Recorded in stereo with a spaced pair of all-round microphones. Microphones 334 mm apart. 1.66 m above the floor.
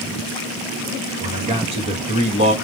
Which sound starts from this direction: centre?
A man speaking, at 1.2 s.